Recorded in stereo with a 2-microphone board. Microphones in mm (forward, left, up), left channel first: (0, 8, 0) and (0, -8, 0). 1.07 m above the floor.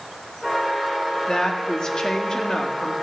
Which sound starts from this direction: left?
A woman speaking, at 1.3 s.